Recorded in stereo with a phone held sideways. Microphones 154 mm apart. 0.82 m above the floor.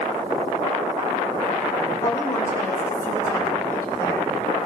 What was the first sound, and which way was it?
A woman speaking, 20° left (ahead or behind).